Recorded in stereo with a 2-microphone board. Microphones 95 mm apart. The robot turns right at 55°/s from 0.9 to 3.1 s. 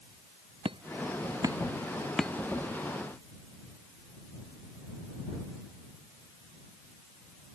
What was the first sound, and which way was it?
Hammering, 65° right (ahead or behind).